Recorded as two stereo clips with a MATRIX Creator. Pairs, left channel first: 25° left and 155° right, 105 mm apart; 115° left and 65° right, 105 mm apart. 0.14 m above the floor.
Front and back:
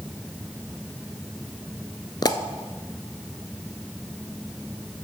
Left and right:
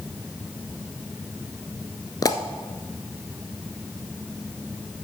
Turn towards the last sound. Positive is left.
turn(degrees=65)